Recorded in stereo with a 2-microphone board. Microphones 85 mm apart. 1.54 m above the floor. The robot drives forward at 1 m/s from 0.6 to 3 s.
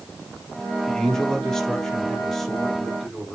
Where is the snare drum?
I don't hear a snare drum.